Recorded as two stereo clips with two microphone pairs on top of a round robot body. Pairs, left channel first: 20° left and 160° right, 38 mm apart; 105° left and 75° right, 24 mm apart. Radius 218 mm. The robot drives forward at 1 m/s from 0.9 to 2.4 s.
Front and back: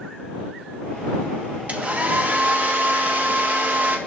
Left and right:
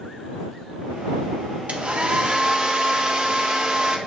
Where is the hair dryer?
105° right, 1.9 m; by 4.0 s 125° right, 2 m.